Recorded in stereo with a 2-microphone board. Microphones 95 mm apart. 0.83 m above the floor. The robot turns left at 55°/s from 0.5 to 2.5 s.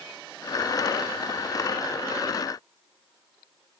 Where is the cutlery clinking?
I don't hear cutlery clinking.